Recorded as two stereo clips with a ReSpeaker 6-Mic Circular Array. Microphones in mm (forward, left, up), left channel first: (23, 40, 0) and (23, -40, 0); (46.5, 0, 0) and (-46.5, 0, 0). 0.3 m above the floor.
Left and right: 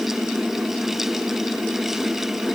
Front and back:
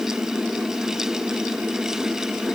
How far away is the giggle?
I don't hear a giggle.